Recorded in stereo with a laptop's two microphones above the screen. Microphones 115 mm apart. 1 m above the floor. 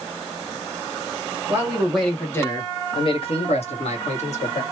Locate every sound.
1.5 s a man speaking: 20° right (ahead or behind), 1.0 m; by 4.6 s 70° left (ahead or behind), 1.8 m